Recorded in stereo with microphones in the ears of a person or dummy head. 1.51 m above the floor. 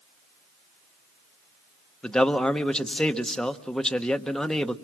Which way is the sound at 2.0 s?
5° left (ahead or behind).